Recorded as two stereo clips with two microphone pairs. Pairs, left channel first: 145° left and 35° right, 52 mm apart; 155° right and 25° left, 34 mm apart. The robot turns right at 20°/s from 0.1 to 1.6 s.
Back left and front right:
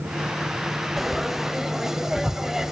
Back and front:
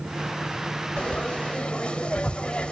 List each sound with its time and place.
1.0 s frying: 125° right, 0.7 m; by 2.7 s 115° right, 0.7 m